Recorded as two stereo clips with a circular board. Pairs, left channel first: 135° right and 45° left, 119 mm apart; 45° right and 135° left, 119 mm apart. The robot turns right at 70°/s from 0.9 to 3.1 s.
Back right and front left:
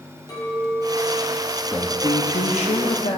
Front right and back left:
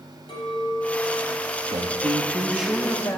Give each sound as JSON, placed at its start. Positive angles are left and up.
{"t": 0.3, "sound": "a clink", "azimuth_deg": -80, "distance_m": 5.5}
{"t": 1.7, "sound": "a man speaking", "azimuth_deg": 155, "distance_m": 1.1}